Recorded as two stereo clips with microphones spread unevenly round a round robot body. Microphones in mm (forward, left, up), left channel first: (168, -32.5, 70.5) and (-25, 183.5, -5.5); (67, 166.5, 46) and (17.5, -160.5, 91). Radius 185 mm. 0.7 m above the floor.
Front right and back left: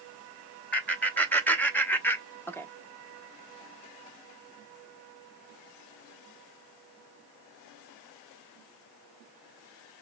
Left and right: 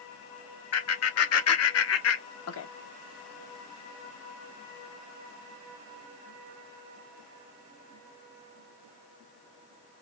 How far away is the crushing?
I don't hear crushing.